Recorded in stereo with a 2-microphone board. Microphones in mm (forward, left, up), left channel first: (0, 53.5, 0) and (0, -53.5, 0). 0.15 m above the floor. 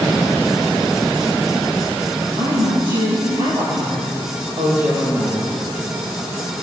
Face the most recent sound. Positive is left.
turn(degrees=-35)  # may be behind; listen again after turning